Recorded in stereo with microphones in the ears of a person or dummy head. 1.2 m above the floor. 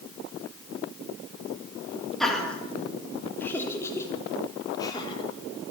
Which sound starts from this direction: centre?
Laughter, at 2.2 s.